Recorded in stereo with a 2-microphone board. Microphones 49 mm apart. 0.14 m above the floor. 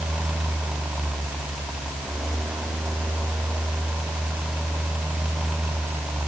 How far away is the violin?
No violin in this recording.